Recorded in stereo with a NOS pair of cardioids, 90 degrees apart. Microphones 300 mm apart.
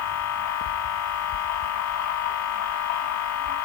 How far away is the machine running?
About 1.5 m.